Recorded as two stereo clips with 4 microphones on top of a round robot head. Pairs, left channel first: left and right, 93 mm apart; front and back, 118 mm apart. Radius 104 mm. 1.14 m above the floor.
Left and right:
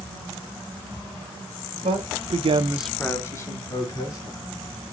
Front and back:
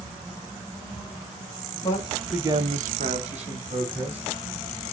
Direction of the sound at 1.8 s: 70° right.